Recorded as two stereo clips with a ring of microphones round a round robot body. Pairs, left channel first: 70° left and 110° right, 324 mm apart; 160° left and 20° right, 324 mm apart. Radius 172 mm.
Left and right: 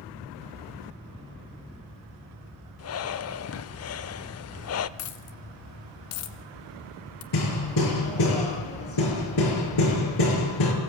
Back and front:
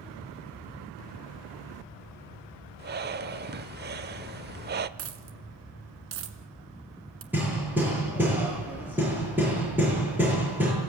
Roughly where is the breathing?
Ahead left.